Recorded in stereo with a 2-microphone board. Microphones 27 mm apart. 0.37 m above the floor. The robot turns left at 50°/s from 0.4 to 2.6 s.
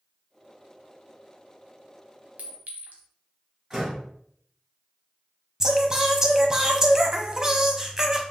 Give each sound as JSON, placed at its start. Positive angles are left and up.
{"t": 2.4, "sound": "a clink", "side_deg": -65, "distance_m": 1.1}
{"t": 3.7, "sound": "a door slam", "side_deg": -20, "distance_m": 2.5}
{"t": 5.6, "sound": "singing", "side_deg": -25, "distance_m": 0.7}